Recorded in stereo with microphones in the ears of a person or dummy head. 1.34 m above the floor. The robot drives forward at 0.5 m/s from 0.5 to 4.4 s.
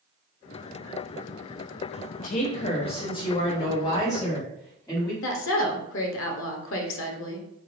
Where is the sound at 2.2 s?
40° left (ahead or behind), 0.6 m; by 5.1 s 15° left (ahead or behind), 1.6 m.